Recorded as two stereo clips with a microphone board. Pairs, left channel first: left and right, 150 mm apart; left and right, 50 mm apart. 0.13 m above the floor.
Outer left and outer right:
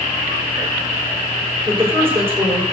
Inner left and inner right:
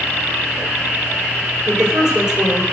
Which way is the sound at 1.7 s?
15° right (ahead or behind).